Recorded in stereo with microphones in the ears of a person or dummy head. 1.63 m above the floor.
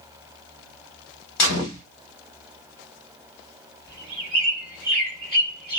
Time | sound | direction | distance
1.4 | a gunshot | 60° left (ahead or behind) | 1.4 m
3.9 | a bird | 10° left (ahead or behind) | 2.5 m